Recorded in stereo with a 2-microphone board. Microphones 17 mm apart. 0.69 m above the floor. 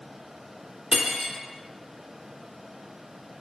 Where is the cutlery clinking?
75° right (ahead or behind), 0.9 m.